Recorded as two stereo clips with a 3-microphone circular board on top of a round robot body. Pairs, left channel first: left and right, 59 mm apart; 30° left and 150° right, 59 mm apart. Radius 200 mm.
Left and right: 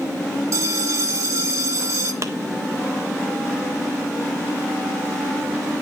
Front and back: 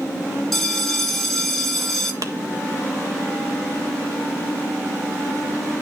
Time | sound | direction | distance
0.5 | a bell | 55° right | 0.6 m
2.2 | a clap | 125° right | 1.5 m